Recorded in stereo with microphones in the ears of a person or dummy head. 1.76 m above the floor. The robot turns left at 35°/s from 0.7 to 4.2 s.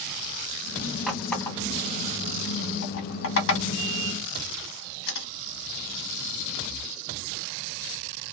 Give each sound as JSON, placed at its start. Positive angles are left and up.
{"t": 1.1, "sound": "a running tap", "side_deg": 0, "distance_m": 1.5}